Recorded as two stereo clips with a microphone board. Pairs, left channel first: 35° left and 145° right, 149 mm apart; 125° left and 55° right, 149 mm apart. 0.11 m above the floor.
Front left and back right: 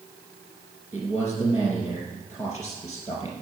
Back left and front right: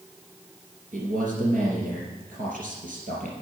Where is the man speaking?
80° right, 3.5 m.